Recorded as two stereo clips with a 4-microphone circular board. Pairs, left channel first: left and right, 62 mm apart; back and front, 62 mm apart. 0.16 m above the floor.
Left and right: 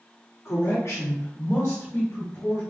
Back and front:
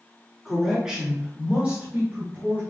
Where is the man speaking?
85° left, 1.6 m; by 2.6 s 50° left, 2.5 m.